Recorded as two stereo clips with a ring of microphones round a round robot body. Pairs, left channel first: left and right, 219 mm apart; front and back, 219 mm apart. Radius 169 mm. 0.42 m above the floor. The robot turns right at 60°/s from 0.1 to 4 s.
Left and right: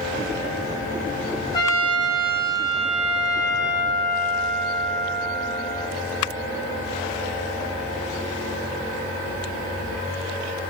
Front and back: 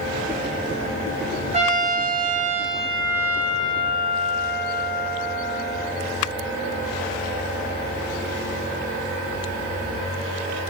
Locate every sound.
1.5 s a trumpet: 145° left, 1.2 m; by 5.9 s 65° right, 1.2 m